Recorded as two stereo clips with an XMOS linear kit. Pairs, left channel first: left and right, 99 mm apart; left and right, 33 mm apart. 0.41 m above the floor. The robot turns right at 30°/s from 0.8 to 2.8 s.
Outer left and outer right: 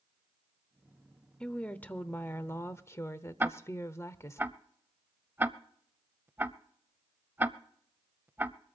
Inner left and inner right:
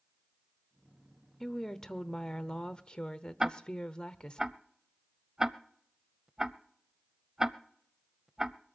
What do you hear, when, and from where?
1.4 s a woman speaking: 20° left, 0.9 m; by 4.4 s 60° left, 0.9 m
3.4 s ticking: 20° right (ahead or behind), 0.6 m